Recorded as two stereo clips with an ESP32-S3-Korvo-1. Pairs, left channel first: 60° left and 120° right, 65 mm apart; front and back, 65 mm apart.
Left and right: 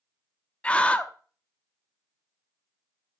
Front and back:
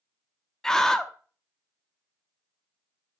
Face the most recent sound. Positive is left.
turn(degrees=70)